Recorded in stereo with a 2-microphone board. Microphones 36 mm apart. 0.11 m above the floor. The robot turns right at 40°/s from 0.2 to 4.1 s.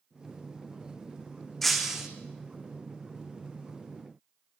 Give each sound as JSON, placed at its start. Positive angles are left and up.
{"t": 1.6, "sound": "breaking glass", "side_deg": 5, "distance_m": 3.0}